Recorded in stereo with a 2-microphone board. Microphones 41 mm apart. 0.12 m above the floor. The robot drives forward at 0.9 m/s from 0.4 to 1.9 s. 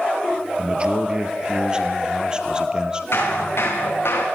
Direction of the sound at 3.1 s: 75° left (ahead or behind).